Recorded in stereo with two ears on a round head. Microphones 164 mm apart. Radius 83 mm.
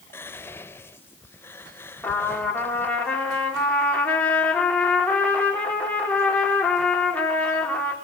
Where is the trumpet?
10° left (ahead or behind), 4.5 m.